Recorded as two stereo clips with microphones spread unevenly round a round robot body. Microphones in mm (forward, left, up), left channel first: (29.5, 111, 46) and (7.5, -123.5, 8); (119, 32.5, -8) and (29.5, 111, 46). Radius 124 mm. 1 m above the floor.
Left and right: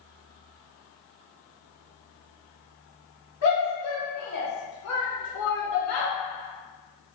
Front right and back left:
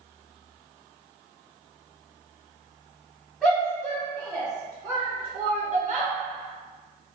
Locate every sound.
3.4 s a shout: 45° left, 1.6 m; by 6.1 s 105° left, 1.1 m